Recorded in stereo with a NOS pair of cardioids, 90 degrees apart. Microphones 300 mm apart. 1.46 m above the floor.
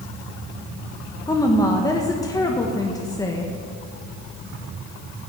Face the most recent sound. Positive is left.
turn(degrees=10)